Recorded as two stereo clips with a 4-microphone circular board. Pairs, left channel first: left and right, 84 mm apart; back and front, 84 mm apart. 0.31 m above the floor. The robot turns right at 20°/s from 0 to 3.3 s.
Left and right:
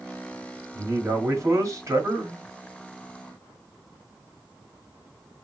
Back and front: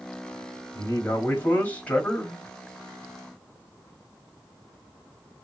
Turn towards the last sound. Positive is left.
turn(degrees=-85)